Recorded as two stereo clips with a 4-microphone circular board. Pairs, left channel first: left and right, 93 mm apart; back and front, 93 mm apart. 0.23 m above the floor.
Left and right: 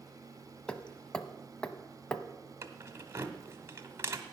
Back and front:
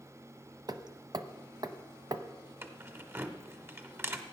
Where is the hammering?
15° left, 0.7 m.